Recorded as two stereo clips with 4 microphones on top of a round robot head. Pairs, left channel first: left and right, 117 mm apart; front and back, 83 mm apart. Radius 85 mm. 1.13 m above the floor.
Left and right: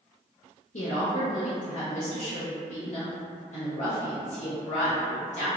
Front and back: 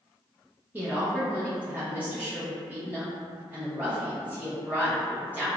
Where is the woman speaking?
110° left, 0.7 m.